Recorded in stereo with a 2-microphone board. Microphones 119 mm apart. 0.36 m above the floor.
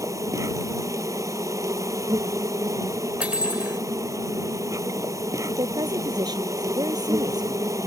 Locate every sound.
0.0 s an insect: 30° right (ahead or behind)
3.2 s cutlery clinking: 10° right (ahead or behind)
5.5 s a woman speaking: 35° right (ahead or behind)